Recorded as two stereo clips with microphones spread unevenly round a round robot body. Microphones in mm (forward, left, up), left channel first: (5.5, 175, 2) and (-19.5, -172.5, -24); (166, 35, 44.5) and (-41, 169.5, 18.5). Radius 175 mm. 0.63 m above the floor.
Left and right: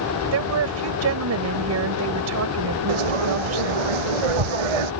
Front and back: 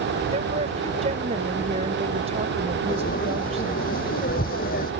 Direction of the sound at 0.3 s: 140° right.